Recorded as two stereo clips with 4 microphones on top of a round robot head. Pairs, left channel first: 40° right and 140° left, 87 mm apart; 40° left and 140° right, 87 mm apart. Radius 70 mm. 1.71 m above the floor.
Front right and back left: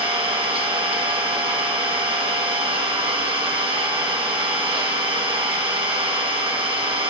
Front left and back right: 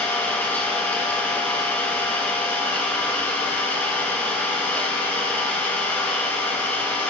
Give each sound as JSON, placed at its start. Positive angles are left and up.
{"t": 0.0, "sound": "an engine running", "azimuth_deg": 115, "distance_m": 2.5}